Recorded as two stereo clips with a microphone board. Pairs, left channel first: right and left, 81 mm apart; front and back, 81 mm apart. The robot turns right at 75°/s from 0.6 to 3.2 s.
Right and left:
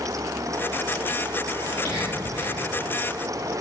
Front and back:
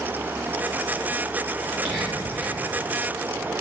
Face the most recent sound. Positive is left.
turn(degrees=-30)